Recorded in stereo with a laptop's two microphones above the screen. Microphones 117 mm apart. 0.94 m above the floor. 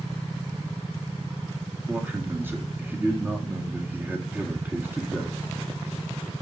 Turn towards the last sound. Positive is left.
turn(degrees=-15)  # may be behind; listen again after turning